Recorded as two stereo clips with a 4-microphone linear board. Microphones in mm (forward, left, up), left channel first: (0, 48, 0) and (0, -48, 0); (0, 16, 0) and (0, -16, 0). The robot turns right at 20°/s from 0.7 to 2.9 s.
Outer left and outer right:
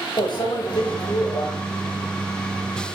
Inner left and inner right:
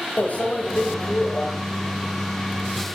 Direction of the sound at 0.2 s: 50° left (ahead or behind).